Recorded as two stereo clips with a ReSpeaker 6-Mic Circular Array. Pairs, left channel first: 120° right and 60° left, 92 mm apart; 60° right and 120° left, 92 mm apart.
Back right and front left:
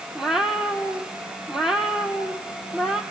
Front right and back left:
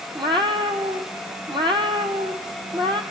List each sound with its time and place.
0.1 s a cat meowing: 145° left, 3 m